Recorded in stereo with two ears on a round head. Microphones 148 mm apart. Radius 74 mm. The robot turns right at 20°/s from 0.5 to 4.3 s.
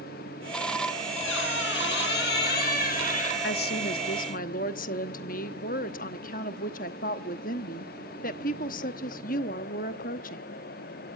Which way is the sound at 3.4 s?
65° left (ahead or behind).